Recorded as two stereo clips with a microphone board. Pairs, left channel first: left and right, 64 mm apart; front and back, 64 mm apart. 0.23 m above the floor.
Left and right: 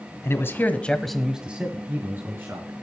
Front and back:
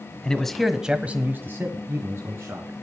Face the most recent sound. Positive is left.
turn(degrees=-135)